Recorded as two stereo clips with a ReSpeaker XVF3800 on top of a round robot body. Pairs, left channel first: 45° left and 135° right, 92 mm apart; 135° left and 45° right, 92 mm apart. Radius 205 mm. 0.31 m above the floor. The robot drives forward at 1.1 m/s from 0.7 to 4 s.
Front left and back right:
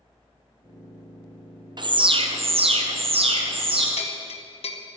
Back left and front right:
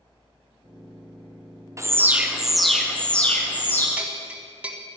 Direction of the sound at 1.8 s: 100° right.